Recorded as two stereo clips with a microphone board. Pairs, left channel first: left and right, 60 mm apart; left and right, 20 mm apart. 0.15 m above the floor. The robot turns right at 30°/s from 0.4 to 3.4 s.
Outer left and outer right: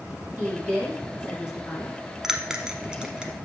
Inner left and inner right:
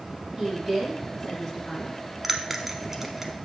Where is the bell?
10° right (ahead or behind), 0.8 m; by 3.3 s 15° right (ahead or behind), 0.8 m.